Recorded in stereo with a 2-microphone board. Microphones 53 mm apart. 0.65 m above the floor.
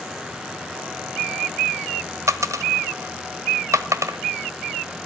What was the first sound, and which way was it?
A dropped coin, 85° right.